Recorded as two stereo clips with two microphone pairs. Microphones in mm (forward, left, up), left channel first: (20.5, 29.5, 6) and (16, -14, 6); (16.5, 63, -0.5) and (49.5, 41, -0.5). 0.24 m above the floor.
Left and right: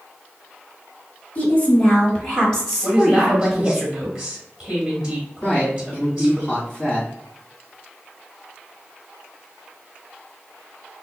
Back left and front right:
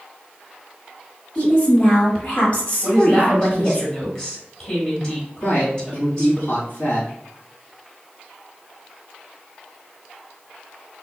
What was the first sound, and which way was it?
A woman speaking, 100° left.